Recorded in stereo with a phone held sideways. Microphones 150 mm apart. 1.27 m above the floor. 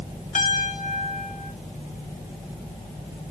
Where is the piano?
55° left (ahead or behind), 1.4 m.